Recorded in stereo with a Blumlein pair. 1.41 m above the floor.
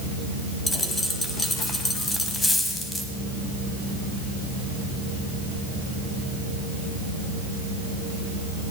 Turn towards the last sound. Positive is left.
turn(degrees=10)